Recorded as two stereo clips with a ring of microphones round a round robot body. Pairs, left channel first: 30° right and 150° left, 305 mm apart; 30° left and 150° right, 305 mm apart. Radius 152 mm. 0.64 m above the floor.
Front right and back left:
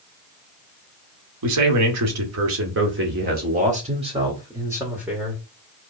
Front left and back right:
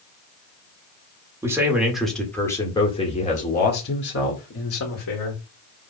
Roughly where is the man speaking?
Behind left.